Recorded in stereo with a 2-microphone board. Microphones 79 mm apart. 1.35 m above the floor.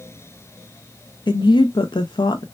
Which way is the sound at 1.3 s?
75° left (ahead or behind).